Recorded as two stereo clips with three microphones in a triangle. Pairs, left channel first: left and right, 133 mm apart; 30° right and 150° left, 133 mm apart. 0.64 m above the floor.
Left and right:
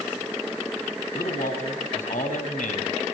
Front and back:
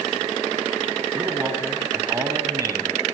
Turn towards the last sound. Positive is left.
turn(degrees=90)